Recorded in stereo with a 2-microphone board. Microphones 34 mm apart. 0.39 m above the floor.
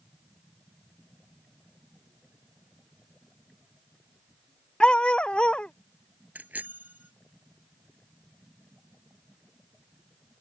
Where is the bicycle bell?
50° right (ahead or behind).